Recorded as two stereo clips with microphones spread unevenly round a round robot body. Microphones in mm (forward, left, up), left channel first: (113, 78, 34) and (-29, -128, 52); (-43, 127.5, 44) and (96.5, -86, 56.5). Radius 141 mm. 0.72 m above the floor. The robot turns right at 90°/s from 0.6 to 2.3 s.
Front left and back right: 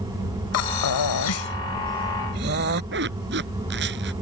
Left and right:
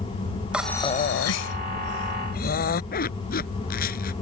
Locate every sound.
0.5 s breathing: 30° left; by 2.8 s straight behind
2.9 s a zipper: 175° right